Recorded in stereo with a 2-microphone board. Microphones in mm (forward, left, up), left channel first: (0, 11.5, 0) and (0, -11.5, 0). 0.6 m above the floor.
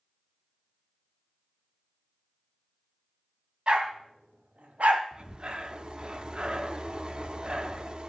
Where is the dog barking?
40° right (ahead or behind), 1.5 m; by 5.0 s 70° right (ahead or behind), 1.2 m.